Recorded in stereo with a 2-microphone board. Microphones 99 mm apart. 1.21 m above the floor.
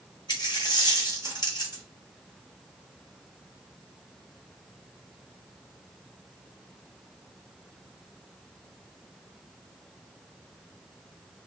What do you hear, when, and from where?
0.3 s a dropped coin: 45° left (ahead or behind), 1.1 m